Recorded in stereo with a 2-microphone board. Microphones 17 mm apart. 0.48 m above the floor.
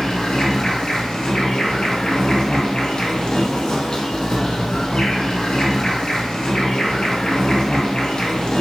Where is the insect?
50° left (ahead or behind), 0.8 m.